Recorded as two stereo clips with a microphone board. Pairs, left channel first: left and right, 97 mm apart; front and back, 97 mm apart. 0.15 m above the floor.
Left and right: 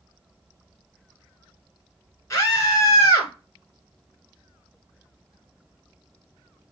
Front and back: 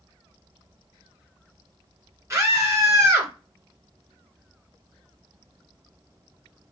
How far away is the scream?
About 1.6 m.